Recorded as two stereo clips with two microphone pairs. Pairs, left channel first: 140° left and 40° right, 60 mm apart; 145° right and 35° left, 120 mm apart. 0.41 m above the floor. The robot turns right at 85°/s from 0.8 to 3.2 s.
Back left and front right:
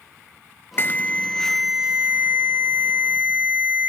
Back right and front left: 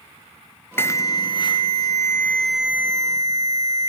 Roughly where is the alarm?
Behind.